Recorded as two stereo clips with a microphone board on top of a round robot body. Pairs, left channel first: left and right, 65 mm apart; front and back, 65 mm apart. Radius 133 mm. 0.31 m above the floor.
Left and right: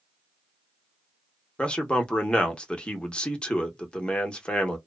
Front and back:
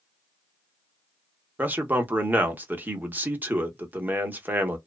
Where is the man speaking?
150° left, 1.0 m.